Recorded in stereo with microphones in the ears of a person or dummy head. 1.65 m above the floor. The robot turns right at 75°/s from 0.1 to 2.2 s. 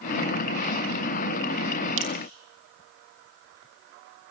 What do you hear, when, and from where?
2.0 s dripping: 65° right (ahead or behind), 2.5 m; by 2.1 s 60° right (ahead or behind), 2.5 m